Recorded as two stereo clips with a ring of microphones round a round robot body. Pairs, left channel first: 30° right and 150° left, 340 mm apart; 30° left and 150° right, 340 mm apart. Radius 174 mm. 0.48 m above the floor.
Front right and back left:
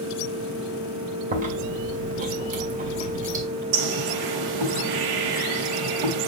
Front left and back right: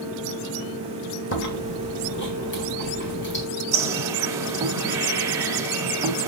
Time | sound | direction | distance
1.3 | chewing | 85° left | 2 m
3.7 | a bird | 130° left | 1.6 m